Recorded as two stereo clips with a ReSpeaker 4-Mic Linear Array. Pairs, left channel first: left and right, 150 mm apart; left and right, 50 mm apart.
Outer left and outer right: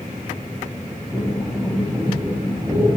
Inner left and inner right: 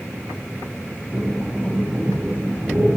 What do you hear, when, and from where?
1.1 s breathing: 5° right (ahead or behind), 5.5 m